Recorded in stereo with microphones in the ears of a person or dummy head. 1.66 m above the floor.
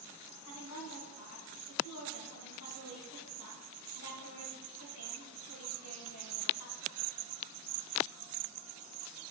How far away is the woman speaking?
About 1.7 m.